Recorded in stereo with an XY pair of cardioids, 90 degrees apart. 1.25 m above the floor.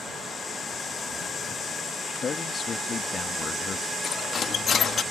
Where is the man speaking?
55° left.